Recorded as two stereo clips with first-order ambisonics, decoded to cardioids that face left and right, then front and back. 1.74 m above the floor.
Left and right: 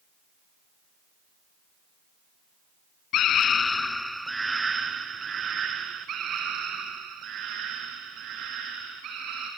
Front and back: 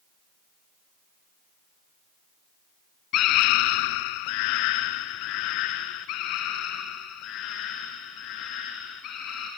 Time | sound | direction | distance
3.1 | a scream | 45° left | 0.6 m